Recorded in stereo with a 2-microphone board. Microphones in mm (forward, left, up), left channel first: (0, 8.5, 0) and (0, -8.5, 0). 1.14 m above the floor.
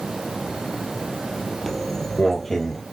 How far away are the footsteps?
About 1.1 m.